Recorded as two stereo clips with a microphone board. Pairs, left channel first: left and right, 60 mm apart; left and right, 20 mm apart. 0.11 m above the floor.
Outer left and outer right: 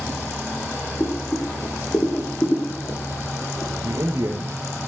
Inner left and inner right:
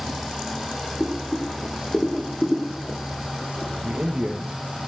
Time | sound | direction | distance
1.0 | boiling | 30° left (ahead or behind) | 4.5 m
3.8 | a man speaking | 55° right (ahead or behind) | 3 m